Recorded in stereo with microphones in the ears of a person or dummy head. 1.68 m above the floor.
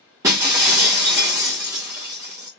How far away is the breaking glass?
About 0.7 m.